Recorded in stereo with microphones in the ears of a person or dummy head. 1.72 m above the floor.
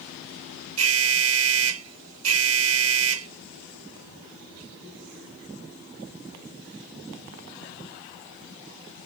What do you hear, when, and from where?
0.8 s an alarm: 85° right